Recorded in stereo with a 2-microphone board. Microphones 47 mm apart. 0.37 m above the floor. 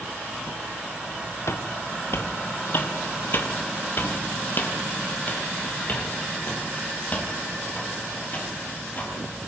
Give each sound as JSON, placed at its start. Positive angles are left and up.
{"t": 1.5, "sound": "footsteps", "side_deg": 70, "distance_m": 1.6}